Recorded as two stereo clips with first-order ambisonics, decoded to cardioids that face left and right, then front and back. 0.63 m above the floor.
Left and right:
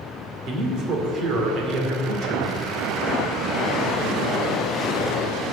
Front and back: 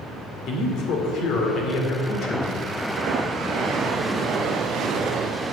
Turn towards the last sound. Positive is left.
turn(degrees=-45)